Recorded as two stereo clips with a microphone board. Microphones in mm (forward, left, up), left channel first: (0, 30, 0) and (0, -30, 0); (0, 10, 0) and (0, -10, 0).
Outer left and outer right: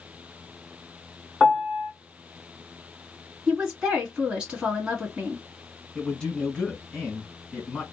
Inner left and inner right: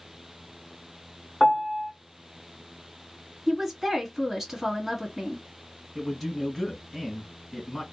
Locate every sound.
1.4 s a piano: 5° right (ahead or behind), 1.5 m
3.5 s a woman speaking: 10° right (ahead or behind), 1.7 m
6.0 s a man speaking: 15° left (ahead or behind), 1.8 m